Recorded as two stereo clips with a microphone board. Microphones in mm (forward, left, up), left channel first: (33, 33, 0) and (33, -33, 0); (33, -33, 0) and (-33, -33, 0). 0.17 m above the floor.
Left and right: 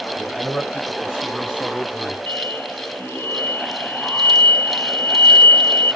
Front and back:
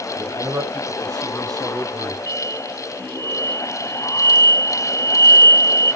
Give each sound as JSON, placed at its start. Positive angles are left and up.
{"t": 0.2, "sound": "a man speaking", "azimuth_deg": -170, "distance_m": 5.5}
{"t": 2.3, "sound": "an explosion", "azimuth_deg": 35, "distance_m": 0.5}